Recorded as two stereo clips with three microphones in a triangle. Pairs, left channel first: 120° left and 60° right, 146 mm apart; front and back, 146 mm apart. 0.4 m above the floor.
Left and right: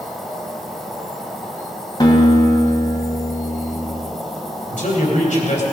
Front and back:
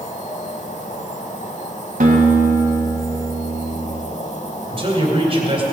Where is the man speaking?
135° left, 2.5 m.